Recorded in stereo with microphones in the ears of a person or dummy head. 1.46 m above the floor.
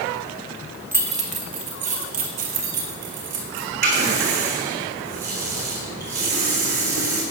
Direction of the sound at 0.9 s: 10° right (ahead or behind).